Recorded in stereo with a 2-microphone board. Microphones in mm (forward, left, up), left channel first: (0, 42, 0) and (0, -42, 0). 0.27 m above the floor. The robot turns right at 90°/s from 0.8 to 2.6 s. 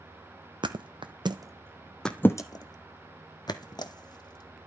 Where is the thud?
70° right (ahead or behind), 0.9 m; by 4.7 s 55° left (ahead or behind), 0.9 m.